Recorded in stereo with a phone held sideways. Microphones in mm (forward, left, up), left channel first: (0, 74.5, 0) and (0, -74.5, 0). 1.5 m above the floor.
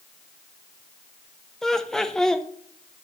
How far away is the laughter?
About 0.6 m.